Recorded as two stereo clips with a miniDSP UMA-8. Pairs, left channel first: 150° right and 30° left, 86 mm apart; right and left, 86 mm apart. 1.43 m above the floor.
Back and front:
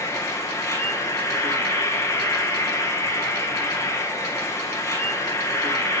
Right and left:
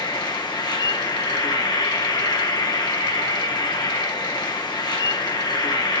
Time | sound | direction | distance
0.0 | an insect | 100° right | 1.8 m